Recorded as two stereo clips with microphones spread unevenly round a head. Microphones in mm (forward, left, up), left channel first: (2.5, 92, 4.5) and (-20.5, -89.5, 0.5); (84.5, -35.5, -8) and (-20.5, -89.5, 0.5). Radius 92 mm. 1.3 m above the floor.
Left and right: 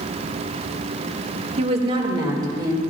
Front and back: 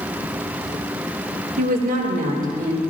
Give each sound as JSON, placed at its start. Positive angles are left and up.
{"t": 1.6, "sound": "a woman speaking", "azimuth_deg": -155, "distance_m": 1.7}